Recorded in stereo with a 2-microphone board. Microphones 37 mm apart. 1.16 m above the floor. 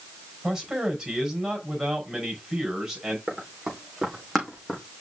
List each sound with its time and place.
0.4 s a man speaking: 10° right (ahead or behind), 5 m
3.3 s running footsteps: 5° left (ahead or behind), 5 m; by 4.8 s 10° left (ahead or behind), 4 m